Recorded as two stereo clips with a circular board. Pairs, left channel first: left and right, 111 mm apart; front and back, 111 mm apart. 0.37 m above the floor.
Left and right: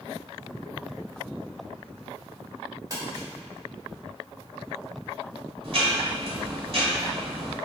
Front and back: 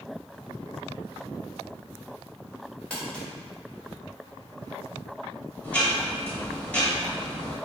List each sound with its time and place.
2.9 s crumpling: 75° right, 1.2 m
5.6 s ticking: 75° right, 0.9 m